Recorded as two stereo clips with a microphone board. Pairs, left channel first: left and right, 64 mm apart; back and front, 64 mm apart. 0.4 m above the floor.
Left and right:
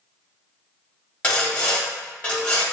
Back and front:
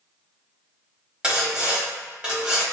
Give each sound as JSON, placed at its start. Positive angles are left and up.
{"t": 1.2, "sound": "sawing", "azimuth_deg": 50, "distance_m": 1.1}